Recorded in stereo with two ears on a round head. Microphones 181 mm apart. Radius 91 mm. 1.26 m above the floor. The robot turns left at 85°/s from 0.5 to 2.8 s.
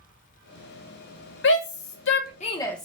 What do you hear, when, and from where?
1.4 s a shout: 60° left (ahead or behind), 1.1 m; by 2.9 s 5° left (ahead or behind), 1.1 m